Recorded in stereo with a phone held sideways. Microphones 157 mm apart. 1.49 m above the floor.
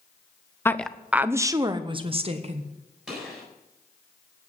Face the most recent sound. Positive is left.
turn(degrees=-5)  # may be behind; listen again after turning